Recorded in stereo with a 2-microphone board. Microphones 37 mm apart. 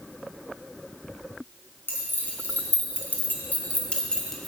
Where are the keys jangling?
65° left (ahead or behind), 3 m; by 4.5 s centre (ahead or behind), 1.7 m.